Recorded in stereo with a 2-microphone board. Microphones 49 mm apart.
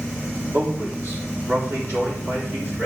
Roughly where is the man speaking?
Right.